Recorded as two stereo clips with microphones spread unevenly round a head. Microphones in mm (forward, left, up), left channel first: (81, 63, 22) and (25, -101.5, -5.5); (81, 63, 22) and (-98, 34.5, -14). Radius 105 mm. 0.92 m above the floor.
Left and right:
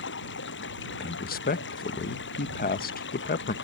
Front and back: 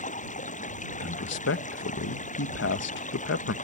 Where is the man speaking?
30° left.